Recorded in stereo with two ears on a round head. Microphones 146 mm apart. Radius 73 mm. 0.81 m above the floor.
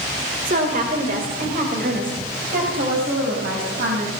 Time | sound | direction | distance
0.5 | a woman speaking | 50° right (ahead or behind) | 2.5 m